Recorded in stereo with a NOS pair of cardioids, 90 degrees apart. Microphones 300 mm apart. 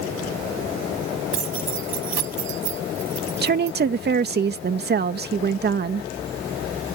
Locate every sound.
1.3 s keys jangling: 65° right; by 3.8 s 60° right
3.4 s a woman speaking: 35° right